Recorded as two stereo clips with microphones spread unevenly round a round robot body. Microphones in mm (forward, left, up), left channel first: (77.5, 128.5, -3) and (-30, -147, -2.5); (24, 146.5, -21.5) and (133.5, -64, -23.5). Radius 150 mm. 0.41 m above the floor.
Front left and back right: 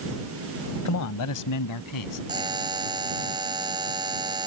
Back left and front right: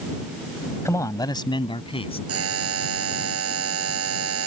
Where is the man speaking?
40° left; by 2.2 s 50° left.